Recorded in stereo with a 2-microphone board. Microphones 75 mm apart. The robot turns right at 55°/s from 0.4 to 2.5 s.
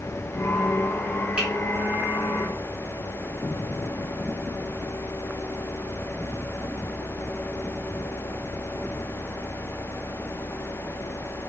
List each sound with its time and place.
1.4 s a finger snap: 15° right (ahead or behind), 1.4 m